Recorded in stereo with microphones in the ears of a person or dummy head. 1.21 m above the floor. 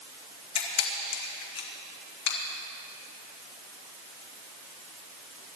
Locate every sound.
0.6 s a camera shutter: 60° left (ahead or behind), 1.8 m